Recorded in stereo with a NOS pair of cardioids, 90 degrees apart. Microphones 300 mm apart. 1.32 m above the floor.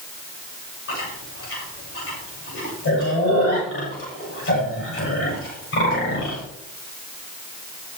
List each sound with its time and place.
0.9 s chewing: 50° left, 7 m